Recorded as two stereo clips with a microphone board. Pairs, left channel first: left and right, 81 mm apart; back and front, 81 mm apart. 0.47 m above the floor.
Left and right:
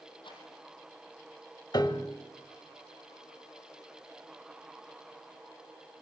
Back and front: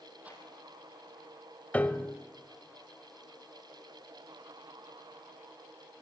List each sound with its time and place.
0.2 s a rattle: 75° left, 5.5 m
1.7 s a piano: 110° left, 1.3 m